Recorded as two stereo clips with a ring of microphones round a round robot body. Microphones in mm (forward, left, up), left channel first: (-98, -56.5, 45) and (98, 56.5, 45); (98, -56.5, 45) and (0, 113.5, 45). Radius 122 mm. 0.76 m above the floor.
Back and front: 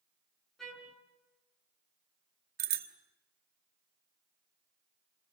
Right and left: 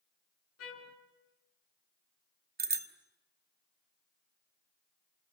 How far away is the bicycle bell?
About 2 m.